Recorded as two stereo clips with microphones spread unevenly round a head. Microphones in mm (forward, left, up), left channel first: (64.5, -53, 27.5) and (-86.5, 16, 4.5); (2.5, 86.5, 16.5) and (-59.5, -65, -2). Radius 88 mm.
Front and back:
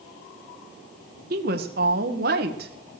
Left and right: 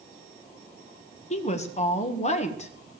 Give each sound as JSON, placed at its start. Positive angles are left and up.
{"t": 1.3, "sound": "a woman speaking", "azimuth_deg": 115, "distance_m": 1.8}